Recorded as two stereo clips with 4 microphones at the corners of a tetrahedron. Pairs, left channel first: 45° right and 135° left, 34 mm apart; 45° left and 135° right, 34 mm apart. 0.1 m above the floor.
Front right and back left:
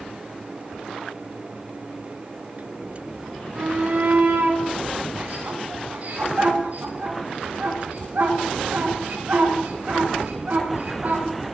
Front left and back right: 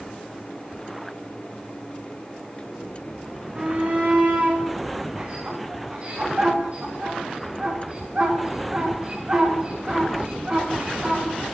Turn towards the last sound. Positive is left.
turn(degrees=170)